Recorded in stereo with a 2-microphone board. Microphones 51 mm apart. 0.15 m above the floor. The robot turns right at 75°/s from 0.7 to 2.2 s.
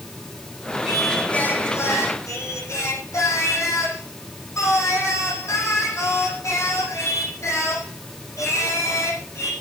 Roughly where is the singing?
Ahead.